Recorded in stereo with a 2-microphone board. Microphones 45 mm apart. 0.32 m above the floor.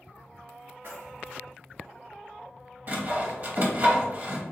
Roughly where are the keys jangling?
Right.